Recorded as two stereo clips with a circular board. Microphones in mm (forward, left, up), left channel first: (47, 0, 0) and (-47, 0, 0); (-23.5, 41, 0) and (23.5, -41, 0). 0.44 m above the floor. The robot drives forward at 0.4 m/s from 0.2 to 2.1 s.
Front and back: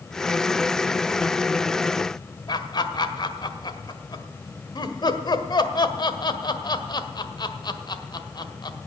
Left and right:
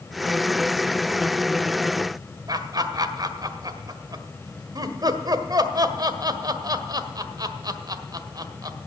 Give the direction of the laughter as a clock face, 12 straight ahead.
1 o'clock.